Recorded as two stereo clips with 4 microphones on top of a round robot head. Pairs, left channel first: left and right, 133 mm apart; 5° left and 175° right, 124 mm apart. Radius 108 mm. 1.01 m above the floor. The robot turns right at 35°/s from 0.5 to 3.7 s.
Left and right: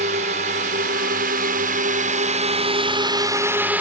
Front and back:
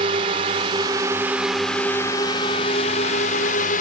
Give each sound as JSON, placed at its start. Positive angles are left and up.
{"t": 0.0, "sound": "a drone", "azimuth_deg": -125}